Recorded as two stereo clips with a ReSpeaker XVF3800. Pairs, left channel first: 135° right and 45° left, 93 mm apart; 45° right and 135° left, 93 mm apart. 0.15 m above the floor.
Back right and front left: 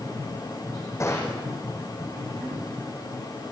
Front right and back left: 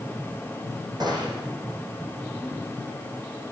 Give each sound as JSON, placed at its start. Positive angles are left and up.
{"t": 1.0, "sound": "a gunshot", "azimuth_deg": 170, "distance_m": 7.5}